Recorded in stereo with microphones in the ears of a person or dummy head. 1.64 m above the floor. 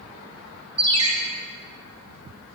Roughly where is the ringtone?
Right.